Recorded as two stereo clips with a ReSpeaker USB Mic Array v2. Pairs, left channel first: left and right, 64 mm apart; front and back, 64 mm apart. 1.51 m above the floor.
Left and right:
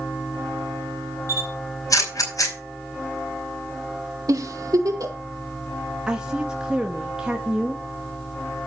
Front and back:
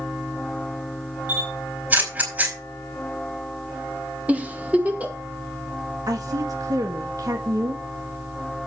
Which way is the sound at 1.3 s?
120° left.